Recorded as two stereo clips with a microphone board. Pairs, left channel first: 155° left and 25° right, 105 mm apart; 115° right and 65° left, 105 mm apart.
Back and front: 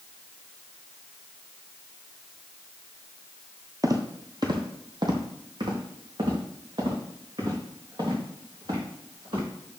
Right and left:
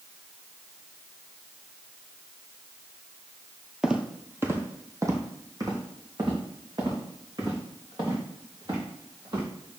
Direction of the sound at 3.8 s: 10° right.